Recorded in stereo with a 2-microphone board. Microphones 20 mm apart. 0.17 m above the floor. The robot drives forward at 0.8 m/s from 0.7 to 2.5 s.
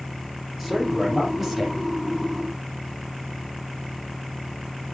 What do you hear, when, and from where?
0.6 s a man speaking: 15° right (ahead or behind), 5 m